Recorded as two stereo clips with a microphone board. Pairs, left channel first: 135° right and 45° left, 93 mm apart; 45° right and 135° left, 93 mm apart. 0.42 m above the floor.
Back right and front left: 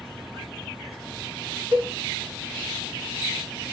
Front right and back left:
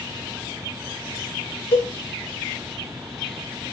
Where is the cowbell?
25° left, 4 m.